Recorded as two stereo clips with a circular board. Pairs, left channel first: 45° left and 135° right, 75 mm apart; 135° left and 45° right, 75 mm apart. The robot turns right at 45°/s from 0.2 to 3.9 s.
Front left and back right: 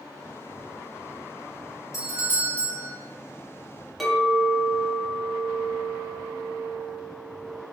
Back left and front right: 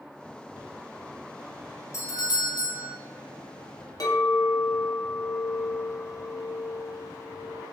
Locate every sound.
1.9 s a doorbell: 90° left, 0.6 m; by 2.9 s 135° left, 0.6 m
4.0 s a clink: 135° left, 1.0 m